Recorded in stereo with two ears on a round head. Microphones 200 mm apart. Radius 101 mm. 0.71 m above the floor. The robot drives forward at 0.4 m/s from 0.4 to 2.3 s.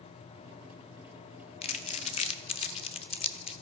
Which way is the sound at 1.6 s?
25° left (ahead or behind).